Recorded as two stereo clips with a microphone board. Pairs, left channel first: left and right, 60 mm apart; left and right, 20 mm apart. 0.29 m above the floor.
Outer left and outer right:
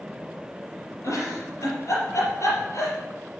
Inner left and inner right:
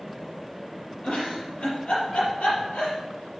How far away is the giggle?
About 4.5 m.